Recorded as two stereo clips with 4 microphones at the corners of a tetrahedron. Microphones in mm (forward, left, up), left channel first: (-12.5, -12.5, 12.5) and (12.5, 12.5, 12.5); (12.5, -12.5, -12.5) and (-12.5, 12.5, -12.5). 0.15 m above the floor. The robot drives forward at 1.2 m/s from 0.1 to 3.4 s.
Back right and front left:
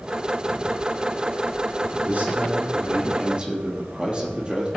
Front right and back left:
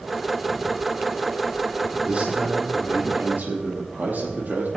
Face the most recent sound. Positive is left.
turn(degrees=105)